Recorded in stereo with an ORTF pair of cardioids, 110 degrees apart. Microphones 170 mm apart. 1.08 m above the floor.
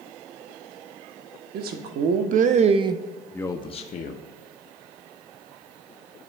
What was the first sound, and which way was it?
A man speaking, 65° right.